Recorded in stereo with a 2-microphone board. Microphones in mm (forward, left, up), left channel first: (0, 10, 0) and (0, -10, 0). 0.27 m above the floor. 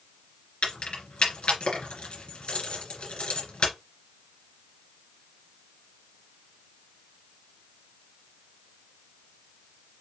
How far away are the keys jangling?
About 2 m.